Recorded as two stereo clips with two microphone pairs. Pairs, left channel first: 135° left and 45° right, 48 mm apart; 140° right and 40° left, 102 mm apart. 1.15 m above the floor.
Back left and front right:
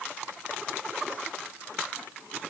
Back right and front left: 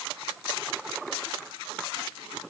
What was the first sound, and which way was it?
Only background noise.